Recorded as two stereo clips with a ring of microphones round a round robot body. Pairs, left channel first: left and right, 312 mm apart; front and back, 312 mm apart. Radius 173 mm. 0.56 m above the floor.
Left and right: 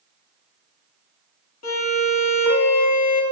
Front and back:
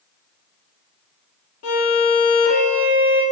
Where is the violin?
50° left, 2.5 m.